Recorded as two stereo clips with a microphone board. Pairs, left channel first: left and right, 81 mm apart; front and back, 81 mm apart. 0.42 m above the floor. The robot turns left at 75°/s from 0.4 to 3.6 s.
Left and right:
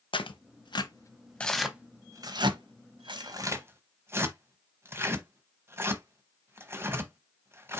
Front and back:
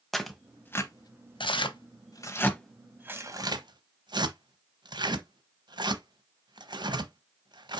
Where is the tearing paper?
90° left, 0.8 m; by 7.8 s 150° right, 0.8 m.